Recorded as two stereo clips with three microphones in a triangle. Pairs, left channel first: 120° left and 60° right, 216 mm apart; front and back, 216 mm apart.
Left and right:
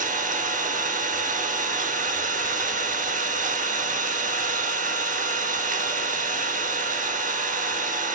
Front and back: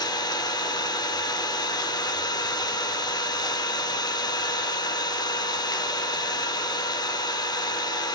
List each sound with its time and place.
0.0 s an engine running: 60° right, 0.8 m